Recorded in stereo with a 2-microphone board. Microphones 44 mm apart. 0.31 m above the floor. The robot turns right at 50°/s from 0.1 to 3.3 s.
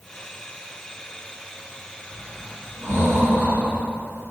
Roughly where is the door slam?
No door slam in this recording.